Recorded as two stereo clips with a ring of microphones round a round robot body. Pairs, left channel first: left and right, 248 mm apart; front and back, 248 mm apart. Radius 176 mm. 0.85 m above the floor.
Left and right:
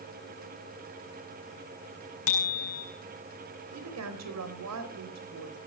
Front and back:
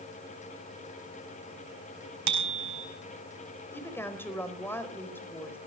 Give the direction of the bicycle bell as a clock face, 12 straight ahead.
7 o'clock.